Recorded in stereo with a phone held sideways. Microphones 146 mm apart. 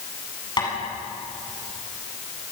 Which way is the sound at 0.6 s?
30° left (ahead or behind).